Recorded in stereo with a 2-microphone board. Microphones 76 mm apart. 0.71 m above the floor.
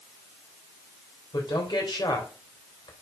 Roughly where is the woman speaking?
Left.